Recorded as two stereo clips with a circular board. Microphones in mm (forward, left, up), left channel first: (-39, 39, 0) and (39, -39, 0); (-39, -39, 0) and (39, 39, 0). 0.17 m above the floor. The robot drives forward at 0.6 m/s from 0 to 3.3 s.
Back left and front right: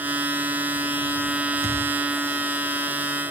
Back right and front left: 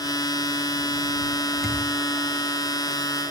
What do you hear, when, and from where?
1.6 s a thud: 135° left, 8 m